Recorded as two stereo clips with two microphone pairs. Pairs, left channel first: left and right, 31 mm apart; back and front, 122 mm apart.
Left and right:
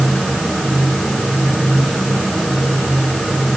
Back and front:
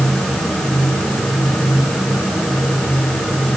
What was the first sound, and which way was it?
Only background noise.